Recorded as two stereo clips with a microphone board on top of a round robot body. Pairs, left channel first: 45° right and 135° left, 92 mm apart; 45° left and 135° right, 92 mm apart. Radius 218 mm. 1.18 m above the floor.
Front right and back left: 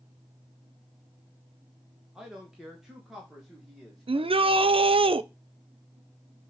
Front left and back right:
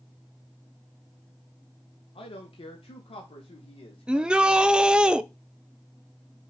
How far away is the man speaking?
About 1.6 m.